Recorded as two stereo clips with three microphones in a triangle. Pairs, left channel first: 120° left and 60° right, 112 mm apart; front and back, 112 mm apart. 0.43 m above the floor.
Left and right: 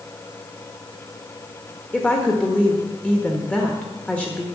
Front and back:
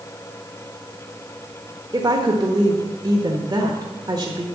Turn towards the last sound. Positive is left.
turn(degrees=-170)